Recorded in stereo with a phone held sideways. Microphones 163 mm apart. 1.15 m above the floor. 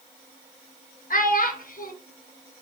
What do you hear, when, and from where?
1.1 s a child speaking: 60° left (ahead or behind), 0.6 m